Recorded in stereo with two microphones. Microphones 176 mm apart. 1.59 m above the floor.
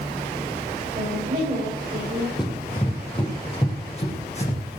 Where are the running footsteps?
25° left (ahead or behind), 3.5 m; by 4.6 s 40° left (ahead or behind), 4.5 m.